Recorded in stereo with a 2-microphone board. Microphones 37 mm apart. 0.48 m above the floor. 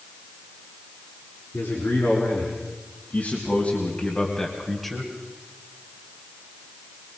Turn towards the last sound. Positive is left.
turn(degrees=-5)  # may be behind; listen again after turning